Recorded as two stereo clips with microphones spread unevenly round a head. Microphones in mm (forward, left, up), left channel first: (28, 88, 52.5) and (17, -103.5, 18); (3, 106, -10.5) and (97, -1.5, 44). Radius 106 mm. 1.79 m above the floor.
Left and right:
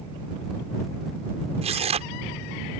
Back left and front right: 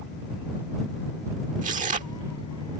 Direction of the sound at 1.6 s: 30° right.